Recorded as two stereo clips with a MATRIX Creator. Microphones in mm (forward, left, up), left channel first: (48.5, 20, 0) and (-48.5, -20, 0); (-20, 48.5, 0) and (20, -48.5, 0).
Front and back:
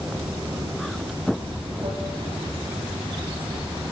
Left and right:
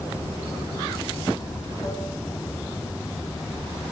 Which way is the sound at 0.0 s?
170° left.